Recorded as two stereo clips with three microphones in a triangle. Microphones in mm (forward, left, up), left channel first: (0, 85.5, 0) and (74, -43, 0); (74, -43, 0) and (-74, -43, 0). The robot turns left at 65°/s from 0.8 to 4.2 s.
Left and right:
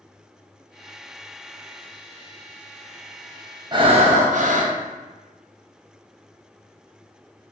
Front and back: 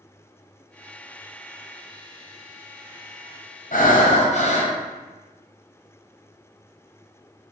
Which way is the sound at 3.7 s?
Straight ahead.